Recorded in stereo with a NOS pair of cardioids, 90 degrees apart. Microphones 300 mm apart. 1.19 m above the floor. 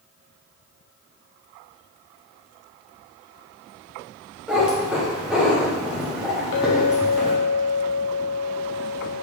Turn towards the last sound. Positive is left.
turn(degrees=65)